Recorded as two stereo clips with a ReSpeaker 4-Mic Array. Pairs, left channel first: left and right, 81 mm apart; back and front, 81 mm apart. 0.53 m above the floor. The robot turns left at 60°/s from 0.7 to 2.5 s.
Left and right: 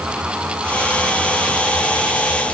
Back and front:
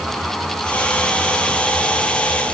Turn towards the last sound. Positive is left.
No sound to turn to.